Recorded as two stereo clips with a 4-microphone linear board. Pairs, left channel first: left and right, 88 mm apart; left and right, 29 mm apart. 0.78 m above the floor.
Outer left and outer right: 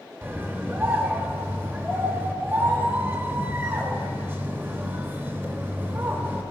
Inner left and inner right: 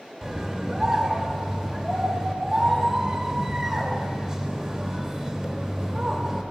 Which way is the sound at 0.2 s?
25° right (ahead or behind).